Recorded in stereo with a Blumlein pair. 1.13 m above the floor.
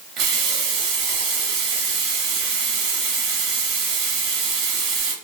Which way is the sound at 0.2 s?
35° right.